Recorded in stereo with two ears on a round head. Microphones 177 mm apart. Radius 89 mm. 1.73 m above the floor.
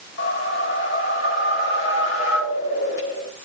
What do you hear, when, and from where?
0.2 s a whoosh: 70° left (ahead or behind), 4.5 m